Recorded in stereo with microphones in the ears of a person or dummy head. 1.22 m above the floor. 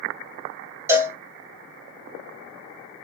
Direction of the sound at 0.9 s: 10° right (ahead or behind).